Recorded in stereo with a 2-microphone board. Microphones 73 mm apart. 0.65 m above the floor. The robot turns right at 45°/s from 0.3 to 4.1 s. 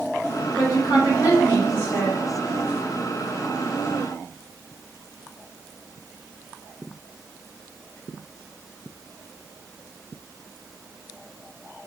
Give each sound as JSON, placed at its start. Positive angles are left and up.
{"t": 0.6, "sound": "a woman speaking", "azimuth_deg": 65, "distance_m": 1.5}